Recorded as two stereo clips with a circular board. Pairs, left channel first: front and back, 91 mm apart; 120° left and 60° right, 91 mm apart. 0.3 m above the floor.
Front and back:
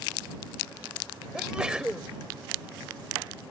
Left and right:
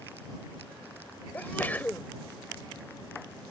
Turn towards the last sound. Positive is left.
turn(degrees=120)